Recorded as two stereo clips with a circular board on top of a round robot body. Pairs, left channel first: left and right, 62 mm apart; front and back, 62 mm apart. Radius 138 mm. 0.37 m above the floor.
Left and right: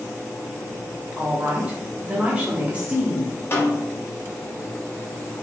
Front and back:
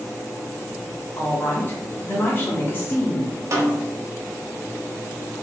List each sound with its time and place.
1.2 s a woman speaking: 30° right, 1.0 m
3.5 s a snare drum: 140° left, 0.7 m